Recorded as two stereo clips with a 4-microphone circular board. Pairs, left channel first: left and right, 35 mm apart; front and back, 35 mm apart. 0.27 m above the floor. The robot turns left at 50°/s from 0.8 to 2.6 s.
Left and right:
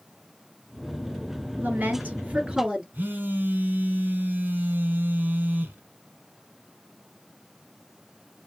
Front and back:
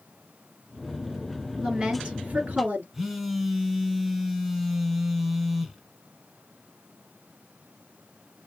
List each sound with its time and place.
1.6 s a woman speaking: 105° right, 3.5 m; by 2.8 s 155° right, 3.5 m
2.9 s a phone buzzing: 100° right, 1.3 m